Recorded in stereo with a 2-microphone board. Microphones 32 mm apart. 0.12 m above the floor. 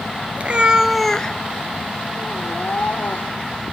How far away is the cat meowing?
About 0.9 m.